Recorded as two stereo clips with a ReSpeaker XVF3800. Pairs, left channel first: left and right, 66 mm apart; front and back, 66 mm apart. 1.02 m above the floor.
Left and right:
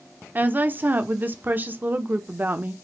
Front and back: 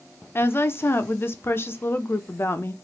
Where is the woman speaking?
40° right, 0.6 m.